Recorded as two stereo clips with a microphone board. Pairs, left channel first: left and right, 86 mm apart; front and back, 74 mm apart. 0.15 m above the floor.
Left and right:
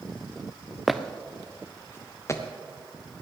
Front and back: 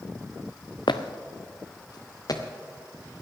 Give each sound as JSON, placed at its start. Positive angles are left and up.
{"t": 0.9, "sound": "footsteps", "azimuth_deg": 0, "distance_m": 1.0}